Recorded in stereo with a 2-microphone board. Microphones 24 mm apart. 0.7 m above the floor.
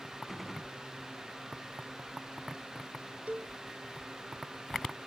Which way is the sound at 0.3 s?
5° left (ahead or behind).